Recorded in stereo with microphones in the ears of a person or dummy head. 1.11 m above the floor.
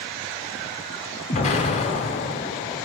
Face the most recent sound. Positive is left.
turn(degrees=35)  # may be behind; listen again after turning